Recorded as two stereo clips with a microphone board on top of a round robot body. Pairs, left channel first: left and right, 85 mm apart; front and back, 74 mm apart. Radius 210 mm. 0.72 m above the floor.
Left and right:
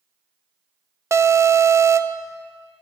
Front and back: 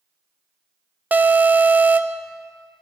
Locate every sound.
1.1 s an alarm: 125° right, 0.8 m